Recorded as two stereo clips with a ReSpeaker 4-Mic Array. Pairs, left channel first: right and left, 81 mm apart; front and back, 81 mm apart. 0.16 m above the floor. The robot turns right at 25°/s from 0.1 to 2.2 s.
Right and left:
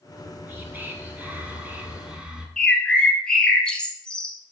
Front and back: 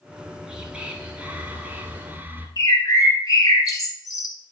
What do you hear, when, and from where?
0.1 s whispering: 105° left, 1.2 m; by 2.5 s 155° left, 1.2 m
2.6 s a bird: 15° right, 1.1 m